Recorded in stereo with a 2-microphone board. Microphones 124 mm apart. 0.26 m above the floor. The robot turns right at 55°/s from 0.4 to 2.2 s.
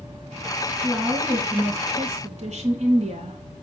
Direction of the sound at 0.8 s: 165° right.